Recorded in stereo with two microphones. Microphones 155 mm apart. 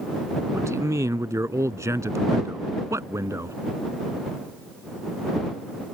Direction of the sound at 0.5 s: 20° right (ahead or behind).